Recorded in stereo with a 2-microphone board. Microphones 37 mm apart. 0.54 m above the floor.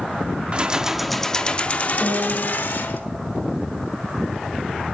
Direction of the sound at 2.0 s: 10° left (ahead or behind).